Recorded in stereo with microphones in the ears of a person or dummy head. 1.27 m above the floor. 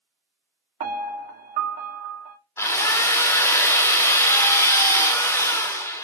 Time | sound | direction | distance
0.8 | a piano | 45° right (ahead or behind) | 1.4 m
2.6 | a drill | 10° left (ahead or behind) | 1.1 m